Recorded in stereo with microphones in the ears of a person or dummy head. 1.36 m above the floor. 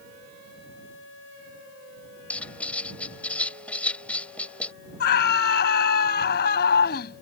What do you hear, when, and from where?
2.3 s writing: 10° left (ahead or behind)
5.0 s a scream: 60° left (ahead or behind)